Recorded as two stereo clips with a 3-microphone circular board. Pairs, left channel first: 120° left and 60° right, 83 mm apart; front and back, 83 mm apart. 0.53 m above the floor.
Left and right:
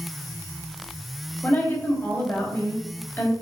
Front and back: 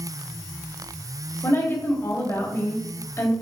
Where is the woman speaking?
55° left, 3 m.